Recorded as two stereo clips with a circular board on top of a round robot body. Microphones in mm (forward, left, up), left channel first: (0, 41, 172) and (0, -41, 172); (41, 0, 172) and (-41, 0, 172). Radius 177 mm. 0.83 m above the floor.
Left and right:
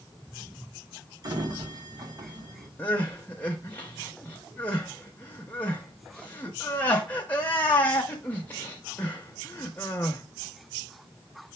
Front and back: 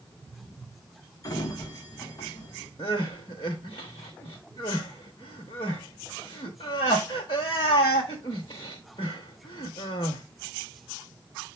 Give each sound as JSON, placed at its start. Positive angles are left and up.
{"t": 1.2, "sound": "a sliding door", "azimuth_deg": -50, "distance_m": 1.5}
{"t": 2.8, "sound": "crying", "azimuth_deg": 20, "distance_m": 0.6}